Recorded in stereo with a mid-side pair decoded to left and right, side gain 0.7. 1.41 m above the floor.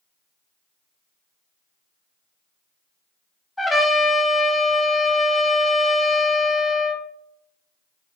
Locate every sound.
3.6 s a trumpet: 10° left, 0.7 m